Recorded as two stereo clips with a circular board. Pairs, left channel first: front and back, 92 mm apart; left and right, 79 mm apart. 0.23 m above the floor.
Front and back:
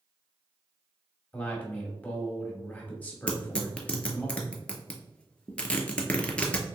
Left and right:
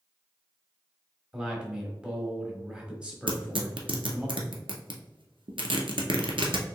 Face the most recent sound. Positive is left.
turn(degrees=-80)